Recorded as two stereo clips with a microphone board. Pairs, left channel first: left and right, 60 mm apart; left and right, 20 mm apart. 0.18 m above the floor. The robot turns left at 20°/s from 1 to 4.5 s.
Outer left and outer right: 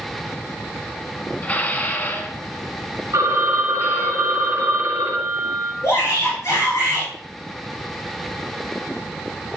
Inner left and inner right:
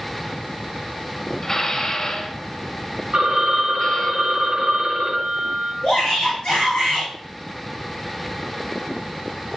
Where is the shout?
60° left (ahead or behind), 3.5 m.